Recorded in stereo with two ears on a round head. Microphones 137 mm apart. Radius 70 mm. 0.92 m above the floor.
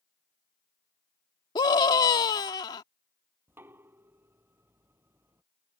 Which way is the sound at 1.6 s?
25° left (ahead or behind).